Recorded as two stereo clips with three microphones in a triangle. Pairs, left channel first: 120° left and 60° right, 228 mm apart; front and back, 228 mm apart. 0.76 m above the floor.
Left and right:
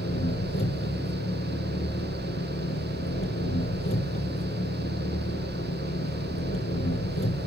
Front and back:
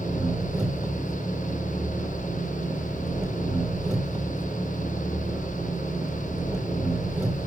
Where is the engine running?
95° left, 4 m.